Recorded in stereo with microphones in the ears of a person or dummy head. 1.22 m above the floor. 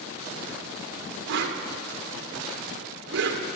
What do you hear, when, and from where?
1.3 s a whoosh: 65° right (ahead or behind), 1.0 m